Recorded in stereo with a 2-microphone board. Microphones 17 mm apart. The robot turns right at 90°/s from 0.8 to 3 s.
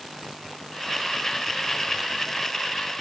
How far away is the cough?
I don't hear a cough.